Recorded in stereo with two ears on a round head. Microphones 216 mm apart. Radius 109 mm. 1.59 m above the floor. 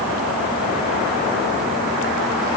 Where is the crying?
No crying in this recording.